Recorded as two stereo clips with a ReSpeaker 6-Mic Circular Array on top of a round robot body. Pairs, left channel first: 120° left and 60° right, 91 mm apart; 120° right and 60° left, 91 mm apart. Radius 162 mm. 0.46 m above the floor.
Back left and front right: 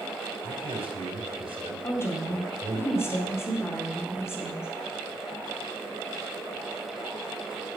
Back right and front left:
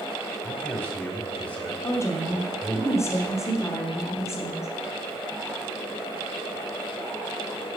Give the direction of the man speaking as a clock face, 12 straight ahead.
2 o'clock.